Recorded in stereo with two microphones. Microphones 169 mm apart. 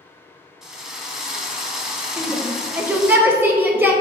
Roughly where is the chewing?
I don't hear chewing.